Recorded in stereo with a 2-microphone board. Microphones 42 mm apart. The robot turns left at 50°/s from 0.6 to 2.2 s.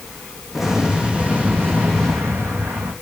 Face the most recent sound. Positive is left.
turn(degrees=-85)